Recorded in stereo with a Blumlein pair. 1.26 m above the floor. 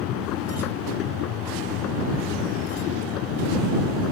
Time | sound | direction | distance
0.0 | a machine running | 35° left | ?